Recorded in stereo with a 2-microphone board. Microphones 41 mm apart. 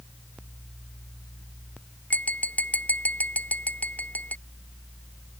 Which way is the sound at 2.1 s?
40° left (ahead or behind).